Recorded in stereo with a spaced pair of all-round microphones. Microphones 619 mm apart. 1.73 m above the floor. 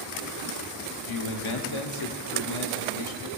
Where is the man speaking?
50° left (ahead or behind), 0.9 m.